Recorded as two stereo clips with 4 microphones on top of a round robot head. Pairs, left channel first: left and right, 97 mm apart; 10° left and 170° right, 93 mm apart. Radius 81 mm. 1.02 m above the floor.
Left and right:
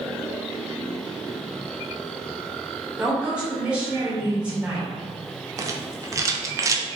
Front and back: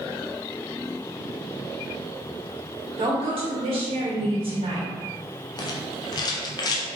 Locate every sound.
3.0 s a woman speaking: 170° right, 1.6 m
5.6 s a rattle: 35° right, 0.5 m